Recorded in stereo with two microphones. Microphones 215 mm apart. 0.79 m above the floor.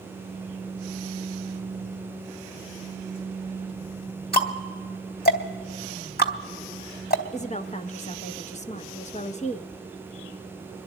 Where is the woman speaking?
30° left (ahead or behind), 0.7 m.